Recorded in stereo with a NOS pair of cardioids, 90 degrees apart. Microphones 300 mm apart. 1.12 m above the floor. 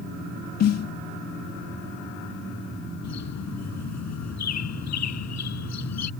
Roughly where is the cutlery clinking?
I don't hear cutlery clinking.